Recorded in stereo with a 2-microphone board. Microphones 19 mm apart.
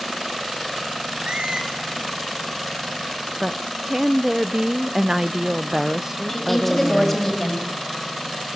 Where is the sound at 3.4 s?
30° right (ahead or behind), 0.5 m.